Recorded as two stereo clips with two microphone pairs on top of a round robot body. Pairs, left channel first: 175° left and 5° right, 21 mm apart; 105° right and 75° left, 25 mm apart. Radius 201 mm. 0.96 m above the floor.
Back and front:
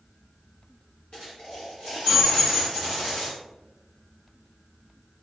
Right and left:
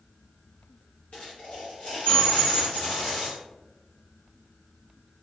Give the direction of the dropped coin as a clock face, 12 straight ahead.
5 o'clock.